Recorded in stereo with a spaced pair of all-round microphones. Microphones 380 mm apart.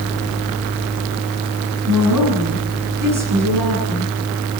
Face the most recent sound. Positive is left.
turn(degrees=-55)  # may be behind; listen again after turning